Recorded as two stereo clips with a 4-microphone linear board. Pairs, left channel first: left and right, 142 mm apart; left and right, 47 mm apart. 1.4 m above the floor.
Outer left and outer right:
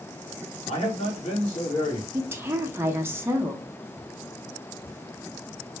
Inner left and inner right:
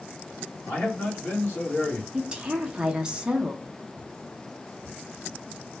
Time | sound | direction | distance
0.7 | a man speaking | 50° left (ahead or behind) | 1.6 m
2.1 | a woman speaking | 15° right (ahead or behind) | 0.6 m